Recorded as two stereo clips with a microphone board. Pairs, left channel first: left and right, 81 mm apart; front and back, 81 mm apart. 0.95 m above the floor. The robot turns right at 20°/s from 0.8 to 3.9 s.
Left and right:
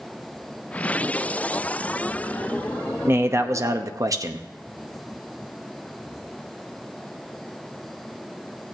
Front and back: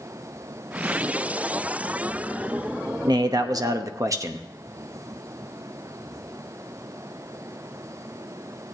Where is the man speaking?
150° right, 0.8 m; by 4.5 s 135° right, 0.8 m.